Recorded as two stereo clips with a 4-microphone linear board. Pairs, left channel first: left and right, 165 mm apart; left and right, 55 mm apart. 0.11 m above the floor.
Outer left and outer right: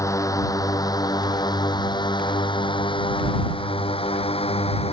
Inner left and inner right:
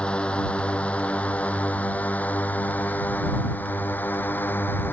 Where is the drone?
20° left (ahead or behind); by 4.9 s 35° left (ahead or behind).